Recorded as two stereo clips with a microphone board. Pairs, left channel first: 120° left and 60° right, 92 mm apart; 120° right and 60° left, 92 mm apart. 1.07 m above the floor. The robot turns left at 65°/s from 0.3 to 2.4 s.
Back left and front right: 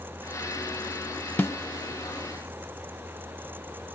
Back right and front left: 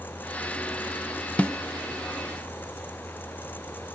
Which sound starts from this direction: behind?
A snare drum, at 1.4 s.